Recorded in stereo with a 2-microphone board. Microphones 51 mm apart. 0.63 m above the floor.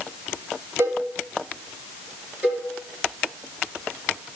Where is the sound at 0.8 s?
85° right, 6.5 m.